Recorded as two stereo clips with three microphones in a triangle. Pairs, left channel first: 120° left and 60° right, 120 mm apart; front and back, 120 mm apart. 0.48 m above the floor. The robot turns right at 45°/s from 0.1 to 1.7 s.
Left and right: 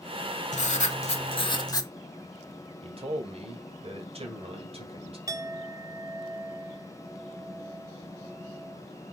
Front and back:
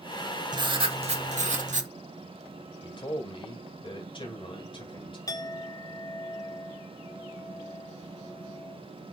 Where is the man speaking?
35° right, 2.5 m.